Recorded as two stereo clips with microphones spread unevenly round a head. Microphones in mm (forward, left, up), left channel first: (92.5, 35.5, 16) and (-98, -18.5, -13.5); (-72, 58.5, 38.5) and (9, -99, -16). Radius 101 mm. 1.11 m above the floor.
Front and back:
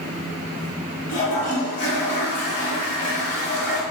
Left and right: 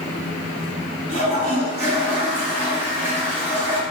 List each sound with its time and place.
1.1 s a toilet flushing: 30° right, 1.8 m